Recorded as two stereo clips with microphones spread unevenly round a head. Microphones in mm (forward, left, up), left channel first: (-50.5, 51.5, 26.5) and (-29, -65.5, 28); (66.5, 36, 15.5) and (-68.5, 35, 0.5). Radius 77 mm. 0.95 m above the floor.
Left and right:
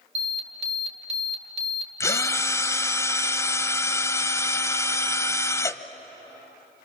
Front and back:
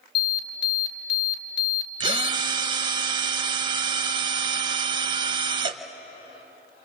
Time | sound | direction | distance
0.1 | an alarm | 25° right | 2.5 m
2.0 | a drill | 155° left | 1.0 m